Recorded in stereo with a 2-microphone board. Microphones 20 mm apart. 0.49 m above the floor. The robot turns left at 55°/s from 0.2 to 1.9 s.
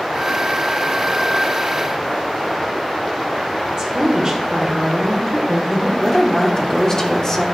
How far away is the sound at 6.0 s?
About 1.0 m.